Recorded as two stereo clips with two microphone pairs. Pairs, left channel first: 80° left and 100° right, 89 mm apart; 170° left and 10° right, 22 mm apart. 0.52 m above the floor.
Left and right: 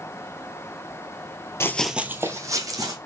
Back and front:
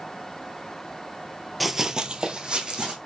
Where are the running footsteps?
75° left, 0.5 m; by 3.0 s 55° right, 1.7 m.